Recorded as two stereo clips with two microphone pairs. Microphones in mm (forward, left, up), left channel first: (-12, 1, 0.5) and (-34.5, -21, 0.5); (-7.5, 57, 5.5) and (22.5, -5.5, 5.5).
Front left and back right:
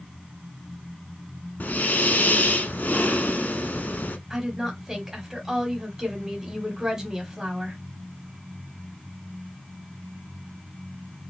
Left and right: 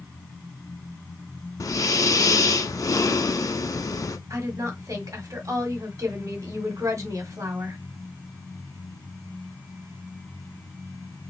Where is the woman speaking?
60° right, 1.4 m.